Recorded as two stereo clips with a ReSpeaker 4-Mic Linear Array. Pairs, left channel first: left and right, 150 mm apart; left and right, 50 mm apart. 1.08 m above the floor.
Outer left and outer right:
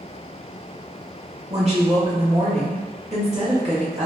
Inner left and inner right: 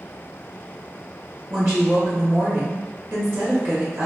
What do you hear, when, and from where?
1.5 s a woman speaking: 45° right (ahead or behind), 1.0 m